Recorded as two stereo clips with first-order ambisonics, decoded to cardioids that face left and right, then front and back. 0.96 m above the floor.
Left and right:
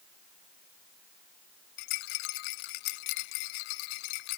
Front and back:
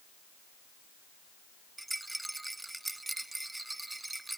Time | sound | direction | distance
1.8 | a rattle | 95° left | ?